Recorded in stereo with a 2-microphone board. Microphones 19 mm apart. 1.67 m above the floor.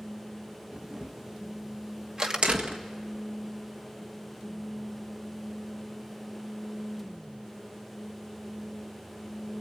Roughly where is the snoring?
No snoring in this recording.